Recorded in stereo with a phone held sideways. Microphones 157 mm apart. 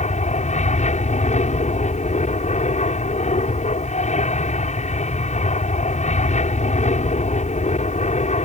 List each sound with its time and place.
0.0 s an aircraft: 50° left (ahead or behind)